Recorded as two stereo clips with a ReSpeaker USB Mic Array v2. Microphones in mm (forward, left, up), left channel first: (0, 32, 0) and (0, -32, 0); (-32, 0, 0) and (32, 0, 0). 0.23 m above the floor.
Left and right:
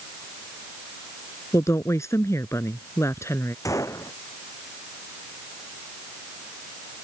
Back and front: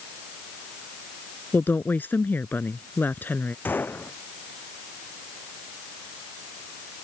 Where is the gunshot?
120° left.